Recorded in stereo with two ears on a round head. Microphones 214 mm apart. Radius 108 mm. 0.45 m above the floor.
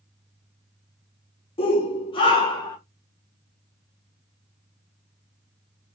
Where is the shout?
25° left (ahead or behind), 1.0 m; by 2.8 s 20° left (ahead or behind), 1.5 m.